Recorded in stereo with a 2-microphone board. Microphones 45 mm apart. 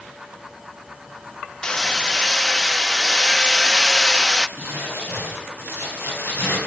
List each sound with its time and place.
1.6 s hammering: 15° left (ahead or behind), 0.6 m
4.6 s crumpling: 55° left (ahead or behind), 8.5 m